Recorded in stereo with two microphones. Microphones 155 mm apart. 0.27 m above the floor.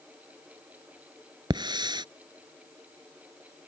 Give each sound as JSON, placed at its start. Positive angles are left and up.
{"t": 1.5, "sound": "a hiss", "side_deg": -30}